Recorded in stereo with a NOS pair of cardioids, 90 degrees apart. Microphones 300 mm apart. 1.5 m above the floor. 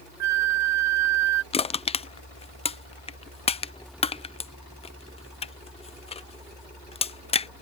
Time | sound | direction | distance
0.2 | a flute | 65° right | ?
1.5 | crushing | 20° left | ?